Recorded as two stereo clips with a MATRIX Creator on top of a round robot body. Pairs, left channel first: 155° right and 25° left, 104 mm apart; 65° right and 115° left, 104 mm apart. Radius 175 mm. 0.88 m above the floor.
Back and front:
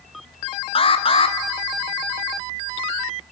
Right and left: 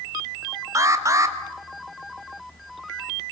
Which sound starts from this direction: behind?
An alarm, at 0.8 s.